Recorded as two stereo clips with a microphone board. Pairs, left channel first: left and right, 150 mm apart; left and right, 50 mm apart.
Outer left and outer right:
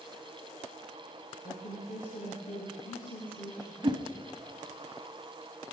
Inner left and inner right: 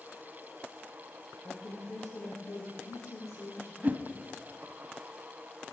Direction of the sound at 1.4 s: 70° left (ahead or behind).